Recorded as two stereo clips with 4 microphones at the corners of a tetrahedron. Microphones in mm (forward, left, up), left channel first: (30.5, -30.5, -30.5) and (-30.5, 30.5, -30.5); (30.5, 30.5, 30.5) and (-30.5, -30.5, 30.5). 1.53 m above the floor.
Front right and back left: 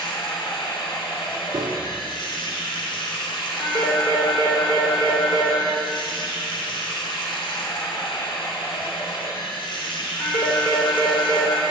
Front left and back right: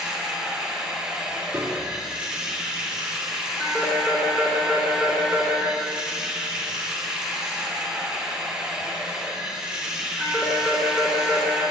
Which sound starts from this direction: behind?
A piano, at 1.5 s.